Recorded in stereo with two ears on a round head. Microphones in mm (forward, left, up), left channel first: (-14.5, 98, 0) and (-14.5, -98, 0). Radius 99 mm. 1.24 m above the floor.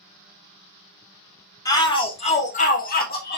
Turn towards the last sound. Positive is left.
turn(degrees=50)  # may be behind; listen again after turning